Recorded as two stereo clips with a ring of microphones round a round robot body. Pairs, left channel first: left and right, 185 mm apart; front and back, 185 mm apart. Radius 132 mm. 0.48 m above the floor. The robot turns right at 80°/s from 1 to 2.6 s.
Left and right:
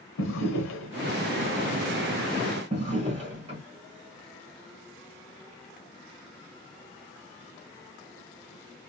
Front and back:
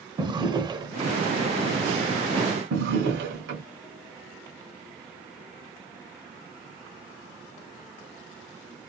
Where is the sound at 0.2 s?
110° left, 0.9 m; by 1.2 s 125° left, 0.9 m.